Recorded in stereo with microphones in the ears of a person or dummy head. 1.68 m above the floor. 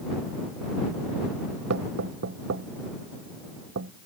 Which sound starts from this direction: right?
Knocking, at 1.7 s.